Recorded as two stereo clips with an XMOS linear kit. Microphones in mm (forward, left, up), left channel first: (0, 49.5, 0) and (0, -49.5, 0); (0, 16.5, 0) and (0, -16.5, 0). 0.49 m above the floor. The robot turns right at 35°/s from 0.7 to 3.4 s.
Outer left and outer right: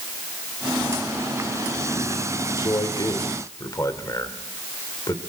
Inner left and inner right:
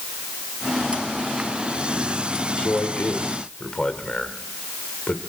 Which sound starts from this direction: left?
A man speaking, at 2.6 s.